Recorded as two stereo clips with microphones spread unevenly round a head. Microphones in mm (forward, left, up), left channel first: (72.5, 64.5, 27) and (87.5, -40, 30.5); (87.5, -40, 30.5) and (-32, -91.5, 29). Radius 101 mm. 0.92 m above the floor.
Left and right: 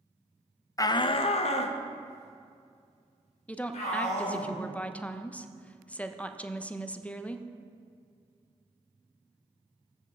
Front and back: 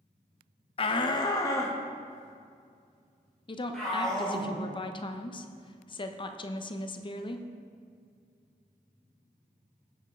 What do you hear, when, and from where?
0.8 s a shout: 50° left, 0.6 m; by 4.5 s 110° left, 4 m
3.5 s a woman speaking: 30° left, 0.8 m